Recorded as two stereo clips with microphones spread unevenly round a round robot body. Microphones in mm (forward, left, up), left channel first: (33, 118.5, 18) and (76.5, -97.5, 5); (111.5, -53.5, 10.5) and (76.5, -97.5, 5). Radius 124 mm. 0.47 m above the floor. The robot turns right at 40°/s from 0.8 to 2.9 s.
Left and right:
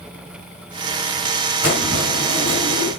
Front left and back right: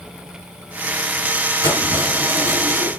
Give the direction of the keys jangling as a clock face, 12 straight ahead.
5 o'clock.